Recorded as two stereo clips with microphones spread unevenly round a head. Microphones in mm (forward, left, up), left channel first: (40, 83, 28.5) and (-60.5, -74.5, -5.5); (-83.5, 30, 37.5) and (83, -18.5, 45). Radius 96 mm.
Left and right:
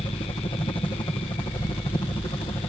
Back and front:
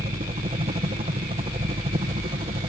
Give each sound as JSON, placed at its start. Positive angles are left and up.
{"t": 0.0, "sound": "a helicopter", "azimuth_deg": 0}